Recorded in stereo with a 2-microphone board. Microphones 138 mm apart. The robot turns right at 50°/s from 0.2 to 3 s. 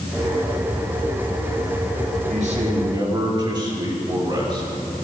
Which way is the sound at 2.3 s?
70° right.